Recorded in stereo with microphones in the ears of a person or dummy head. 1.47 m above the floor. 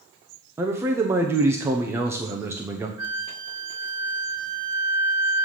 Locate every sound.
0.6 s a man speaking: 10° right (ahead or behind), 0.6 m
3.0 s a flute: 5° right (ahead or behind), 1.7 m